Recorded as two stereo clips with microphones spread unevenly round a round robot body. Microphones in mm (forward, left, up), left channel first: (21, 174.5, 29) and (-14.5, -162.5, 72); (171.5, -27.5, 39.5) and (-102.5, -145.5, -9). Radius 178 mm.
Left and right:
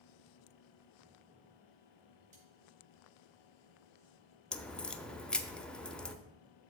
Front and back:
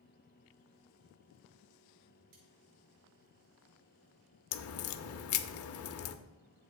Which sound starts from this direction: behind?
Cutlery clinking, at 2.3 s.